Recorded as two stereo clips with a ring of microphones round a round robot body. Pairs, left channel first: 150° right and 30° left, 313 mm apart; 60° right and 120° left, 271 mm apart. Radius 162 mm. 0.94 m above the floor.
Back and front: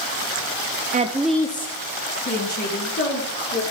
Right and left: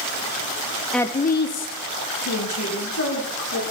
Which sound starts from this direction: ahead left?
A woman speaking, at 0.9 s.